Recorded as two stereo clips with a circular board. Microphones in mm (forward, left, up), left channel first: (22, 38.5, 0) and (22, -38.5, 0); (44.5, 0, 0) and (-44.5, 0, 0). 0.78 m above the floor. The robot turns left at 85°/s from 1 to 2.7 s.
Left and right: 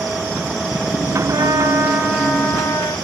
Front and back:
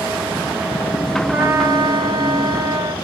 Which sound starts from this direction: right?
A trumpet, at 1.3 s.